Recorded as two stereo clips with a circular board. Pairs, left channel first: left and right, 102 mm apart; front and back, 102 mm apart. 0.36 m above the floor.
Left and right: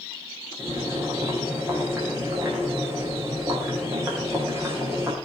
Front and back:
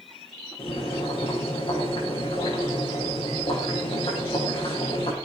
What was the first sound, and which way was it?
Boiling, 25° right.